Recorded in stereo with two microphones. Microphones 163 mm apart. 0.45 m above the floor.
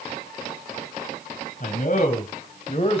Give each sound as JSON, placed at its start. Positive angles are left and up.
{"t": 1.6, "sound": "a man speaking", "side_deg": 60, "distance_m": 3.0}